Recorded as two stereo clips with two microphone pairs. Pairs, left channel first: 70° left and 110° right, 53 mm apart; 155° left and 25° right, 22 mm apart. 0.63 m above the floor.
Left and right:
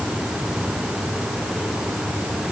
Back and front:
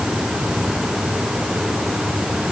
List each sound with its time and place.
Only background noise.